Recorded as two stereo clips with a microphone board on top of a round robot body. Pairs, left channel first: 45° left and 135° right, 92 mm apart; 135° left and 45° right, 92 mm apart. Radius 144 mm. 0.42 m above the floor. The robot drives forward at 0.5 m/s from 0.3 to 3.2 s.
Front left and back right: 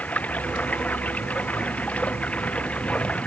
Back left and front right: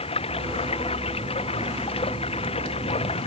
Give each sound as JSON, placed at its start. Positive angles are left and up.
{"t": 0.0, "sound": "running water", "azimuth_deg": 120}